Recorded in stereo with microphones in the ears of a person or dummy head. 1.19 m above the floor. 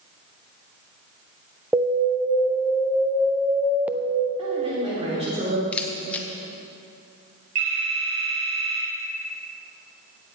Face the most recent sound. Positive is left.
turn(degrees=-85)